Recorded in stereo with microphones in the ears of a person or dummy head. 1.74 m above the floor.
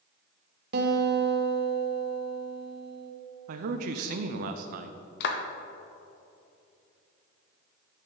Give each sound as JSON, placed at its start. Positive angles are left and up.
{"t": 0.7, "sound": "a guitar", "side_deg": -60, "distance_m": 1.4}
{"t": 3.5, "sound": "a man speaking", "side_deg": -50, "distance_m": 0.7}
{"t": 5.2, "sound": "a clap", "side_deg": 65, "distance_m": 1.1}